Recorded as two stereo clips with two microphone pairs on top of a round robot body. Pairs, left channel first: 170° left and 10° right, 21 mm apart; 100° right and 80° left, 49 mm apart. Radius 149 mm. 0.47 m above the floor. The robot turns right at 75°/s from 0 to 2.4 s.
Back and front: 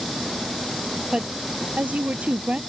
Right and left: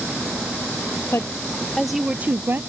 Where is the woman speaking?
65° right; by 2.6 s 35° left.